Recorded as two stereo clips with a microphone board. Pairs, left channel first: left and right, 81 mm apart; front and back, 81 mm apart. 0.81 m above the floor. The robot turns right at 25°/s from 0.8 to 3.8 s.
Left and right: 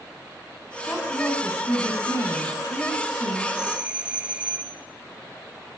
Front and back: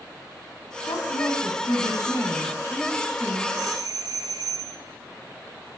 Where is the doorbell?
165° right, 1.8 m; by 4.8 s 160° right, 1.8 m.